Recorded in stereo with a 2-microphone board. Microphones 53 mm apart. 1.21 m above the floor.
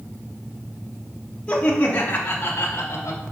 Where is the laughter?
20° left (ahead or behind), 1.7 m; by 3.2 s 50° left (ahead or behind), 1.7 m.